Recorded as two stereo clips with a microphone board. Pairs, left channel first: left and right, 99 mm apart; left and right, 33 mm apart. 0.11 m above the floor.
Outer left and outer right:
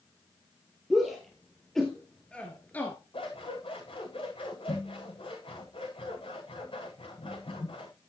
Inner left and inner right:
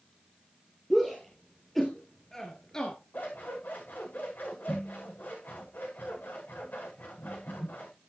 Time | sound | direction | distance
0.9 | a shout | centre (ahead or behind) | 3 m
3.1 | scissors | 60° left (ahead or behind) | 8.5 m